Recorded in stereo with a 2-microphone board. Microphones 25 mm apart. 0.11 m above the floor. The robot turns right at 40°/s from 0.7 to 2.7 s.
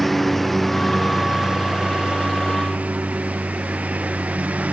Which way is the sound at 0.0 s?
175° left.